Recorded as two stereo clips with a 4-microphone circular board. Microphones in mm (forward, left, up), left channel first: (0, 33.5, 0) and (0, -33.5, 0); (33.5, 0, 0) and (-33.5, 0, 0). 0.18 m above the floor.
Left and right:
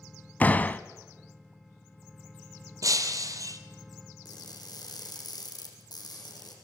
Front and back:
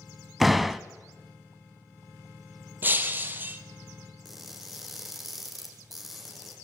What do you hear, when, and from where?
0.4 s a door slam: 95° left, 0.7 m
2.8 s breaking glass: 120° right, 1.3 m
4.2 s crushing: 90° left, 4 m